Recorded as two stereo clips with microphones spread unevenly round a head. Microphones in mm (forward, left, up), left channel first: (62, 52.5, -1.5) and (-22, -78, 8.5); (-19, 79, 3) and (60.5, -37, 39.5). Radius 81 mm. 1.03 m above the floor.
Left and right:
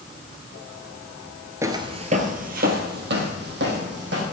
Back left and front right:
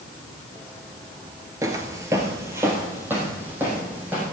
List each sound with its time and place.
1.6 s footsteps: 70° right, 1.1 m; by 4.2 s 130° right, 3.5 m